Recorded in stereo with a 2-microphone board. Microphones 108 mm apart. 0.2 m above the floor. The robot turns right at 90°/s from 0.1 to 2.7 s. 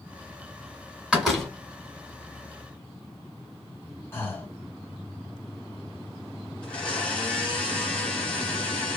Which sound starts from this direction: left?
Breathing, at 4.1 s.